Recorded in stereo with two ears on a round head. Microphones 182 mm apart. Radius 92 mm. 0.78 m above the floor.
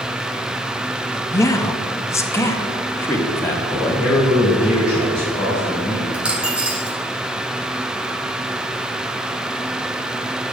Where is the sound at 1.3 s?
15° left (ahead or behind), 0.6 m; by 4.1 s 10° left (ahead or behind), 1.9 m.